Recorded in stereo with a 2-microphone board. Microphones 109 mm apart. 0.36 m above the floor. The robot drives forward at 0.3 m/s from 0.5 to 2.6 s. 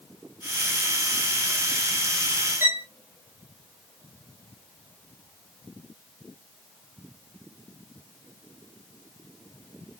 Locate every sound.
2.6 s a violin: 20° right (ahead or behind), 1.5 m